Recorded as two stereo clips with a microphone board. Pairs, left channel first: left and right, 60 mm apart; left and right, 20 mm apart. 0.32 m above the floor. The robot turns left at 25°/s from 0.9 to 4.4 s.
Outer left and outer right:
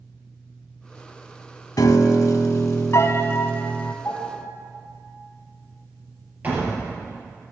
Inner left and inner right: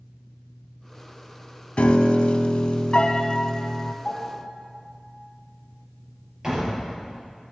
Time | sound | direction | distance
1.8 | a piano | 85° left | 0.6 m
4.0 | a piano | 20° left (ahead or behind) | 3.5 m
6.4 | a door slam | 30° right (ahead or behind) | 4 m